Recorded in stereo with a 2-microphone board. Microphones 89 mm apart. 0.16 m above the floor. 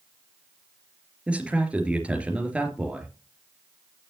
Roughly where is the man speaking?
Centre.